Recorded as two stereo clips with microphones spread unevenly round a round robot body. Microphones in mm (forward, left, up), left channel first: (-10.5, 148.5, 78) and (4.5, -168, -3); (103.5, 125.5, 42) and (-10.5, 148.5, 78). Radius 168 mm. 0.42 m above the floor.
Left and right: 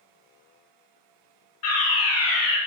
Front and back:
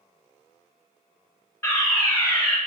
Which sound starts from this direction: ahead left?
A fire alarm, at 1.6 s.